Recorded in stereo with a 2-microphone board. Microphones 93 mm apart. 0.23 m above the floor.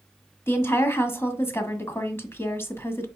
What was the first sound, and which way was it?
A woman speaking, 25° left (ahead or behind).